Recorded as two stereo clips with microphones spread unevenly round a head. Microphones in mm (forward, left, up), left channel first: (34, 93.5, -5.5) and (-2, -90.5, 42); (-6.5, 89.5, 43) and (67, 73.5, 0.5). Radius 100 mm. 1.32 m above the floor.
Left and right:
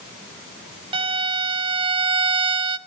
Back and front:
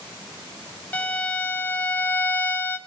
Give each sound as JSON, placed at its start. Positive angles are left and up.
{"t": 0.9, "sound": "a violin", "azimuth_deg": -145, "distance_m": 0.7}